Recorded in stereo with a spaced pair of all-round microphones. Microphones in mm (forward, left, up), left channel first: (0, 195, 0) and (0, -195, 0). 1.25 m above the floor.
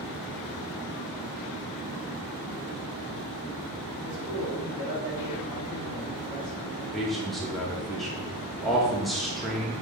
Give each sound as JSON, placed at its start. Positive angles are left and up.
{"t": 4.0, "sound": "a man speaking", "side_deg": 75, "distance_m": 3.0}
{"t": 6.9, "sound": "a man speaking", "side_deg": 0, "distance_m": 2.0}